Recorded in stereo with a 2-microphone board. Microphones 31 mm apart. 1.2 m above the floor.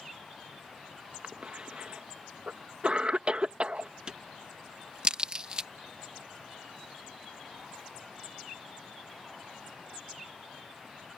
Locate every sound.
1.2 s a cough: 35° right (ahead or behind)
4.1 s a crack: 30° right (ahead or behind)